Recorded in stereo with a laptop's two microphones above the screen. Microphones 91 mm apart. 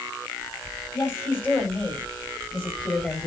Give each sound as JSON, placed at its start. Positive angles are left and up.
{"t": 0.9, "sound": "a woman speaking", "side_deg": 25, "distance_m": 7.0}